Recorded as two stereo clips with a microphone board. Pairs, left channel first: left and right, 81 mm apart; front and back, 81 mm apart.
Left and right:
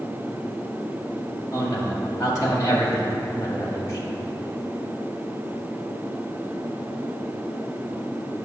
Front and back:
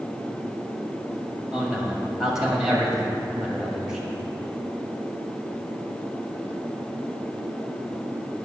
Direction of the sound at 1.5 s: 100° left.